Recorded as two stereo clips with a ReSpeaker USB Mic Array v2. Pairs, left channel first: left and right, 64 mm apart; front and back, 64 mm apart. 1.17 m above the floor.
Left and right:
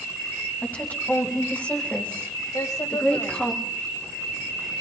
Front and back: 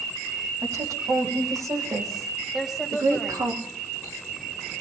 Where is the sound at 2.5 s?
90° left, 6 m.